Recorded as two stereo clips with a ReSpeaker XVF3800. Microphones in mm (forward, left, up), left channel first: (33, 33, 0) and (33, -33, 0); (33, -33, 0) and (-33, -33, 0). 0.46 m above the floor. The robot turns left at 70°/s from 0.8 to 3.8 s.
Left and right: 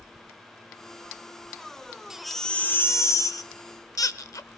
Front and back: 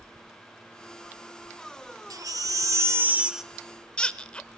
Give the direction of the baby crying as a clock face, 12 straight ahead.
6 o'clock.